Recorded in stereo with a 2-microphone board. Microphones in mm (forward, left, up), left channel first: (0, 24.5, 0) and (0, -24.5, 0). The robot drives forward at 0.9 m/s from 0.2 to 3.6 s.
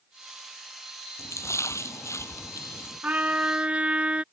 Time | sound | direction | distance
1.2 | a splash | 90° left | ?
3.0 | a trumpet | 35° right (ahead or behind) | ?